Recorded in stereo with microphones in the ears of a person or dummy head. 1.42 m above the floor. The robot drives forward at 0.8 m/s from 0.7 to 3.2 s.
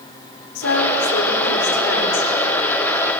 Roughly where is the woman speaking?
Left.